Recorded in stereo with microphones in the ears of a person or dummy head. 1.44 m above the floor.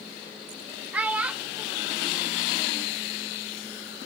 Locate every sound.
0.9 s a child speaking: 10° right (ahead or behind), 0.6 m